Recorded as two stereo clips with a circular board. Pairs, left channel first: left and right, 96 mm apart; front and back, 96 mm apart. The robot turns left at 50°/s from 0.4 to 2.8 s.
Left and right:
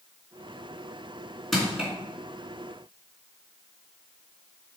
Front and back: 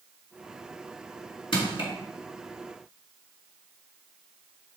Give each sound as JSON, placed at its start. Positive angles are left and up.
{"t": 1.5, "sound": "crushing", "azimuth_deg": 5, "distance_m": 3.0}